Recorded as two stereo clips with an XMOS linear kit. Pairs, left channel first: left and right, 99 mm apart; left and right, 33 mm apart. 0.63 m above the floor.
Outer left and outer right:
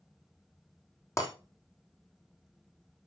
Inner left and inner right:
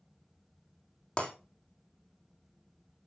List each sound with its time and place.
1.2 s breaking glass: 30° left (ahead or behind), 3 m